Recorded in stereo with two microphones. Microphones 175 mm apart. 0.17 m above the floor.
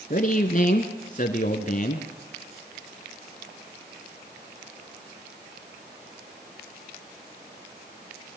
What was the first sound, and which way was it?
A man speaking, 50° left (ahead or behind).